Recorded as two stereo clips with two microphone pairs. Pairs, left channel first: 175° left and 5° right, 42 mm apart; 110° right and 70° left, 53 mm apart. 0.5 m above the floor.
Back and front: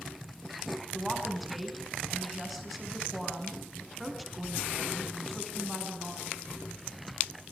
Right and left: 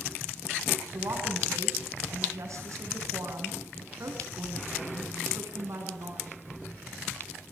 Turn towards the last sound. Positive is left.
turn(degrees=85)